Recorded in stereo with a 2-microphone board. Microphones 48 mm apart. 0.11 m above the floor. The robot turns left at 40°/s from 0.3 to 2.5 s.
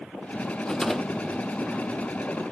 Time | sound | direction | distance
0.7 | a rattle | 15° left | 0.6 m